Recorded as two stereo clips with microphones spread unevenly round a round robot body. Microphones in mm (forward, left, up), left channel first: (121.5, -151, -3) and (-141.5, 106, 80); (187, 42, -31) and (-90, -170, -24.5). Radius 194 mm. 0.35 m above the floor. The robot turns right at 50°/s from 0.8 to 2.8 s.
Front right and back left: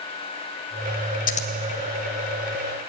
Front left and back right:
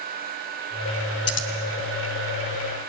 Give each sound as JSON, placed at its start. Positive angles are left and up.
{"t": 1.3, "sound": "scissors", "azimuth_deg": 5, "distance_m": 1.8}